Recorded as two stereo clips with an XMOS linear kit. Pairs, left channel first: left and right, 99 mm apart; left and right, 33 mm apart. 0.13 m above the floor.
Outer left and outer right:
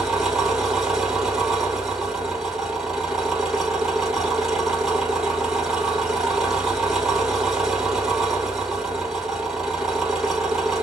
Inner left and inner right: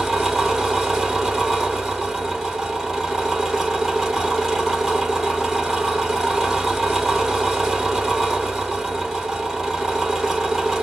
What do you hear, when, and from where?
0.0 s an engine running: 5° right (ahead or behind), 2.5 m